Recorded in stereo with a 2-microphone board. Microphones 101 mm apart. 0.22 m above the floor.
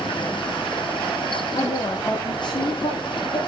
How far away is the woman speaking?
About 7 m.